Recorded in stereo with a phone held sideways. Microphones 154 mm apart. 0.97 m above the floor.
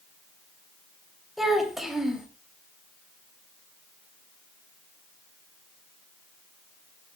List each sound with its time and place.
1.4 s a child speaking: centre (ahead or behind), 3 m